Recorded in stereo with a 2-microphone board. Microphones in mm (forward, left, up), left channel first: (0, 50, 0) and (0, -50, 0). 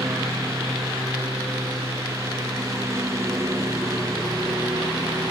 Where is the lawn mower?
30° right (ahead or behind).